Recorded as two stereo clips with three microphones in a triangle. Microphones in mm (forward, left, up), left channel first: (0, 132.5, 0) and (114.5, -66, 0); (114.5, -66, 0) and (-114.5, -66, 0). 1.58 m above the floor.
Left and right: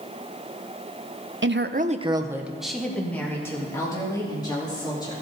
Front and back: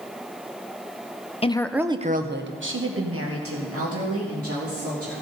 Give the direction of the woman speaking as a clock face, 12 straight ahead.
2 o'clock.